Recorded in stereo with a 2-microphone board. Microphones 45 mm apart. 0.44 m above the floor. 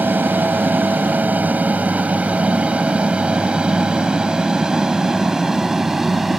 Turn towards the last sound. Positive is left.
turn(degrees=-10)  # may be behind; listen again after turning